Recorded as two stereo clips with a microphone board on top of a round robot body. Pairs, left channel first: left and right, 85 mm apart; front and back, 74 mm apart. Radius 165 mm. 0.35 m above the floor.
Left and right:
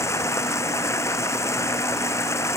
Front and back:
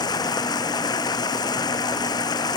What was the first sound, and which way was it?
Running water, 30° left.